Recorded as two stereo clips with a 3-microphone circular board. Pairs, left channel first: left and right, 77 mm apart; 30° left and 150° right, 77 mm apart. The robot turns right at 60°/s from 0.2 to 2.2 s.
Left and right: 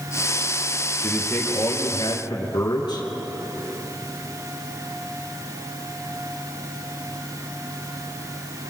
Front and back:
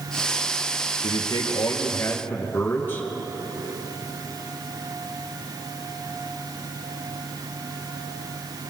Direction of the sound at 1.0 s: 20° left.